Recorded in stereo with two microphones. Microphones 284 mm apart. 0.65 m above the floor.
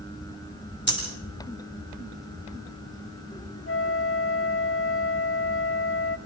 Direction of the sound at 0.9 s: 40° left (ahead or behind).